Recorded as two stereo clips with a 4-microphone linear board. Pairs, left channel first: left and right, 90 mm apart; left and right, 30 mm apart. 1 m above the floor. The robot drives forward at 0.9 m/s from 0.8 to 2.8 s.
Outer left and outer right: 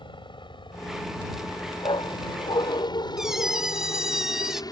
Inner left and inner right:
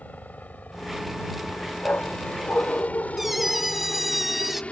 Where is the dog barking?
65° left (ahead or behind); by 3.7 s 60° left (ahead or behind).